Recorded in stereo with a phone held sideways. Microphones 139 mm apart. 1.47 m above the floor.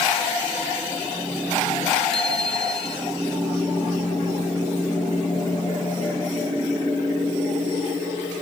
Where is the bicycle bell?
5° left (ahead or behind).